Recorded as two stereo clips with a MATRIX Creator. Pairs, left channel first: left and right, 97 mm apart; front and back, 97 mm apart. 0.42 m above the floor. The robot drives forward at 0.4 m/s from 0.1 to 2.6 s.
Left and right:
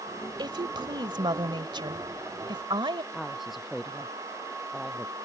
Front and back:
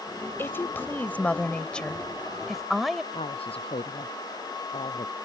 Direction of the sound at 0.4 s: 60° right.